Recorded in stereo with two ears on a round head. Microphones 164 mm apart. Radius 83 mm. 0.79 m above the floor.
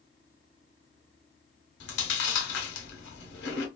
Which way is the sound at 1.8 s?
65° left (ahead or behind).